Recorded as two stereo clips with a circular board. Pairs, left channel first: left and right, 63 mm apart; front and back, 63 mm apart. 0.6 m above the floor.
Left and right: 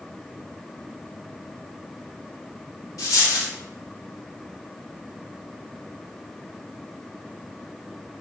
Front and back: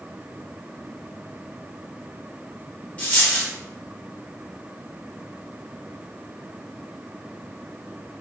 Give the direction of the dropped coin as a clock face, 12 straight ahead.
10 o'clock.